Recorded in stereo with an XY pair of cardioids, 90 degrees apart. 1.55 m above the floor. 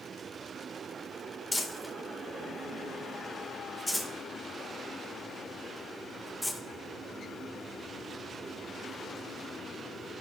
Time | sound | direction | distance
1.5 | crumpling | 10° left | 1.9 m